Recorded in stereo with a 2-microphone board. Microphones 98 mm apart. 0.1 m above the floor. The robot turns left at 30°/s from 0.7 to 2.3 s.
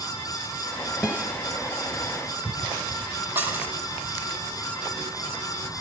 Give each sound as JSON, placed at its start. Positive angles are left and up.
{"t": 1.0, "sound": "a guitar", "side_deg": -15, "distance_m": 1.7}
{"t": 3.4, "sound": "dishes clattering", "side_deg": -20, "distance_m": 2.0}